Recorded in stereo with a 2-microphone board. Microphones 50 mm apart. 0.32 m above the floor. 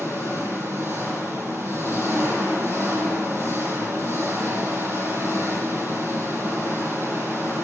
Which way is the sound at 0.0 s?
60° right (ahead or behind).